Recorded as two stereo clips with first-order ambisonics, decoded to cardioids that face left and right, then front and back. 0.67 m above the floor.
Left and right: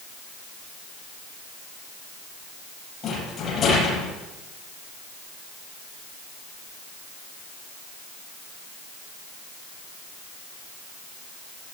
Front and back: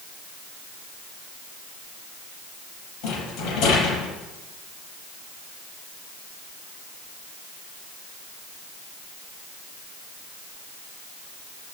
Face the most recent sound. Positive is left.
turn(degrees=25)